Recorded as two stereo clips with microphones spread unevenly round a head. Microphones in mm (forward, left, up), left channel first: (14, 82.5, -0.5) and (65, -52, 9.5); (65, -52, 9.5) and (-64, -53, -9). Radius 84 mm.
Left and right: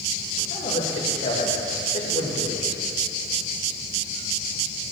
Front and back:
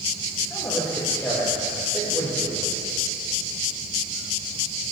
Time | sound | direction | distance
0.5 | a man speaking | 80° left | 2.5 m